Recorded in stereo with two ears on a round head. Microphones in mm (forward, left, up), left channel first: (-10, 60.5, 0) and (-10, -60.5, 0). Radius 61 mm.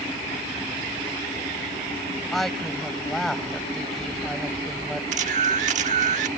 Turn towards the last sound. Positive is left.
turn(degrees=-60)  # may be behind; listen again after turning